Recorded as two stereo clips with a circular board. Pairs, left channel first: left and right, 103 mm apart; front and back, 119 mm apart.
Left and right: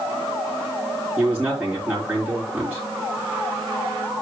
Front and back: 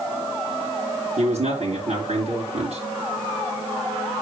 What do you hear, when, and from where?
1.2 s a man speaking: 170° right, 4 m